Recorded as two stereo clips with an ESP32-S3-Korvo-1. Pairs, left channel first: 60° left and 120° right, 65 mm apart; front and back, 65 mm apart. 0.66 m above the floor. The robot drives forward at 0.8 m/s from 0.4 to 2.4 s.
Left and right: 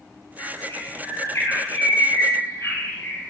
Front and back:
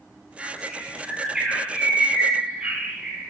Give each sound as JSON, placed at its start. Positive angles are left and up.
{"t": 0.4, "sound": "a bird", "azimuth_deg": 100, "distance_m": 9.0}